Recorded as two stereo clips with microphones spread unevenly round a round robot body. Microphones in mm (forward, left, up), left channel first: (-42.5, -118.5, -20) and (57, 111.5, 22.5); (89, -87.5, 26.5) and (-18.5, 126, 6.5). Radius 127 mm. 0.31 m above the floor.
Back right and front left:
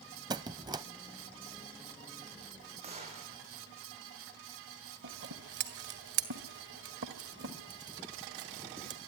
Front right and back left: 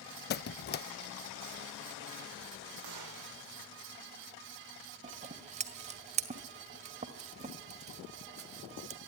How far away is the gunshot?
About 5.5 m.